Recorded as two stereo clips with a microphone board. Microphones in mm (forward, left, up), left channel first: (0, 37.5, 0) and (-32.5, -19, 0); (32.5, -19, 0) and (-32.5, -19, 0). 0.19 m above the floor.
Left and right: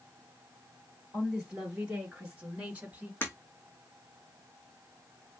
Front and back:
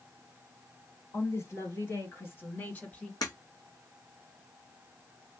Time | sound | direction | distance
1.1 | a woman speaking | 35° right | 3 m
3.2 | breaking glass | straight ahead | 1.9 m